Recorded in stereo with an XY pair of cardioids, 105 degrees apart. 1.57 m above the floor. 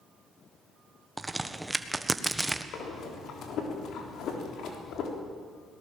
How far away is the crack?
About 1.3 m.